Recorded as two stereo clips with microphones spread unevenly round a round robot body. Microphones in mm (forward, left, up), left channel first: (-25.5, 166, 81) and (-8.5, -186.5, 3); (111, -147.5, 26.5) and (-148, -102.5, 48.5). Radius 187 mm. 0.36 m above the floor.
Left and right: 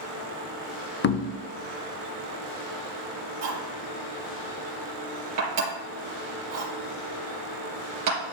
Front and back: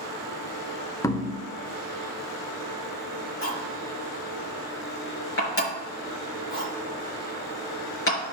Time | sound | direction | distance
1.0 | knocking | 40° left | 0.6 m
3.4 | cutlery clinking | 45° right | 4 m